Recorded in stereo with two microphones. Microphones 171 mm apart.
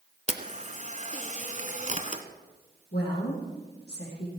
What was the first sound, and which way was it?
A camera shutter, 40° right (ahead or behind).